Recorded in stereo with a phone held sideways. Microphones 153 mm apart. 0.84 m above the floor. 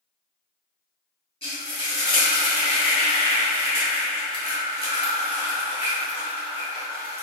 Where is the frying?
35° left (ahead or behind), 1.7 m.